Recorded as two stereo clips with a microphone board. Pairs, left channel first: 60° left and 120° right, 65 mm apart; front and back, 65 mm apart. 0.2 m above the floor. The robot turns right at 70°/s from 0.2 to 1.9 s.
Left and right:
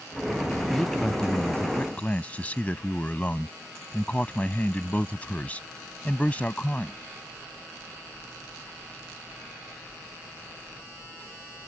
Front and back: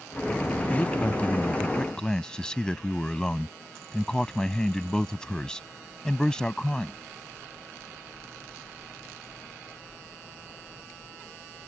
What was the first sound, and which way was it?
A man speaking, 25° right.